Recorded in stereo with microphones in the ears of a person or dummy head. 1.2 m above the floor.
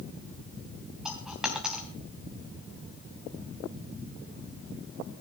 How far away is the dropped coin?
About 3 m.